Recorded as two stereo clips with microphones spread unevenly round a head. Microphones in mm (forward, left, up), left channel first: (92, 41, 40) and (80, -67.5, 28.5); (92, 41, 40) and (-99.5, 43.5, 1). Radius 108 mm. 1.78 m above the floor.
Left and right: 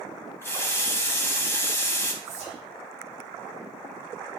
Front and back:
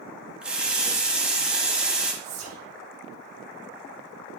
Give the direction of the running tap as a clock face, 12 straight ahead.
9 o'clock.